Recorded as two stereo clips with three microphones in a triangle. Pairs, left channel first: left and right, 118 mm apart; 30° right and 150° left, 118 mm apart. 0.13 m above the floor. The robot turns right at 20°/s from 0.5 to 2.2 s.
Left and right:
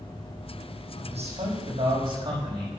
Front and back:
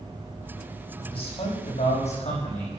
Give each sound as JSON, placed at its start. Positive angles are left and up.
{"t": 1.0, "sound": "a man speaking", "azimuth_deg": -65, "distance_m": 6.5}